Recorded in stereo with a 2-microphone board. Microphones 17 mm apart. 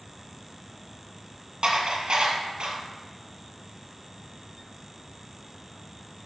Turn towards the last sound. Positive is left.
turn(degrees=-55)  # may be behind; listen again after turning